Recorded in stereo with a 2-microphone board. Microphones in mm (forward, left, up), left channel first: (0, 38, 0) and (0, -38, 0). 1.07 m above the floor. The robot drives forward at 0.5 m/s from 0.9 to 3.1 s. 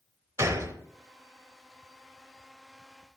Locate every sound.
0.4 s a gunshot: 40° right (ahead or behind), 1.0 m